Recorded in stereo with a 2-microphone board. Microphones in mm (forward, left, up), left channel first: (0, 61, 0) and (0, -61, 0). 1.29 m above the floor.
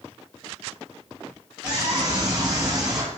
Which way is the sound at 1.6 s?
15° right (ahead or behind).